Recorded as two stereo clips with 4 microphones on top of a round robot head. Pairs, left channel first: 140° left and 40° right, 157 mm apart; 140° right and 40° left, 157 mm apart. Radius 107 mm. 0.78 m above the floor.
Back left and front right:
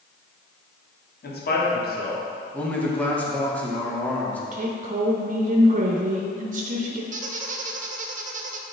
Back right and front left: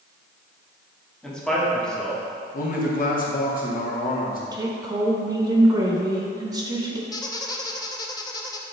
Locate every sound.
1.2 s a man speaking: 135° left, 1.7 m
2.5 s a man speaking: 140° right, 1.7 m
4.5 s a woman speaking: 25° right, 1.0 m
7.1 s a squeak: 75° right, 0.7 m